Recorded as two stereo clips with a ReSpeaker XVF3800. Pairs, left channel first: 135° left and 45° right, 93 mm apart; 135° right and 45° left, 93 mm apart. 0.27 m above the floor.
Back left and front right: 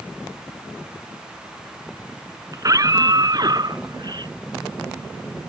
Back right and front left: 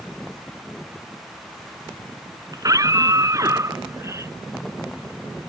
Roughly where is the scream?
Ahead.